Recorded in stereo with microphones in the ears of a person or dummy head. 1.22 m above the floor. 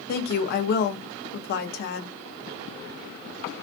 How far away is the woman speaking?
About 0.8 m.